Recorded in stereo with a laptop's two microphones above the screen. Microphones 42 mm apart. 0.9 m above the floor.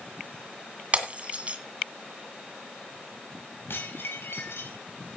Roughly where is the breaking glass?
Right.